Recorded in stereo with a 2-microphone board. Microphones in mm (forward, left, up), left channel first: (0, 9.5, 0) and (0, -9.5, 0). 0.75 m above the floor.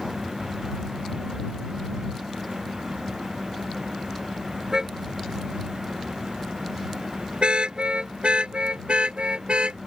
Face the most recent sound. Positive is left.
turn(degrees=-90)